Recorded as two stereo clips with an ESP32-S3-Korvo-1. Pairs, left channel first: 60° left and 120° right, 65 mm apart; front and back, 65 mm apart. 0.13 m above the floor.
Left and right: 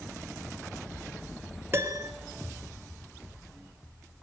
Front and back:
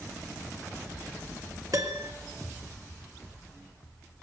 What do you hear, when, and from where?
1.7 s a piano: 170° right, 1.9 m